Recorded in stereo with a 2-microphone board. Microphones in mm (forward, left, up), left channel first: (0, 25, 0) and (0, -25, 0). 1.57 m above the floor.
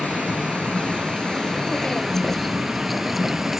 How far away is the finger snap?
No finger snap in this recording.